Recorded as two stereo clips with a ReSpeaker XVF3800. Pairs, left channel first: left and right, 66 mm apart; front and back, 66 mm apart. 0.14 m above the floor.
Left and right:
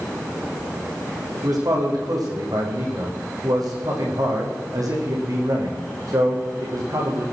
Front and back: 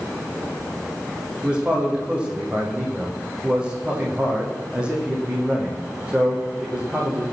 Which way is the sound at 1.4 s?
105° right.